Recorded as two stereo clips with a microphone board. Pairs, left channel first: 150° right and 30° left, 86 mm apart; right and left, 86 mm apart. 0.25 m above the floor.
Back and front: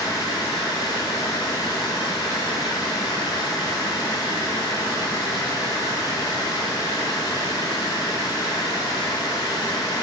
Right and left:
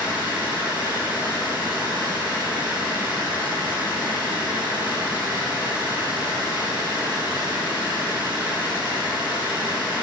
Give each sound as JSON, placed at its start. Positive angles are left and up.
{"t": 0.0, "sound": "running water", "azimuth_deg": 165, "distance_m": 3.5}